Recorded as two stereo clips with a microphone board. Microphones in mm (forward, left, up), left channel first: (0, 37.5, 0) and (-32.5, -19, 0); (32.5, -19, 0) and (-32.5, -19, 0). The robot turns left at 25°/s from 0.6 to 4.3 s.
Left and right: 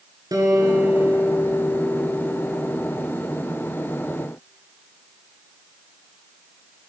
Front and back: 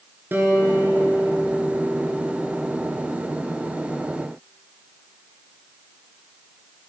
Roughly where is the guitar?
Behind right.